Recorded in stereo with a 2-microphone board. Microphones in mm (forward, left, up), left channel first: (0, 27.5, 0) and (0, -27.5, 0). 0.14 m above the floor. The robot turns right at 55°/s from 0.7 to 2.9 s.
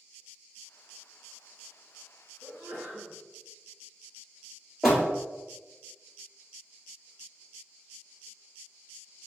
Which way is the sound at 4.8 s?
10° right (ahead or behind).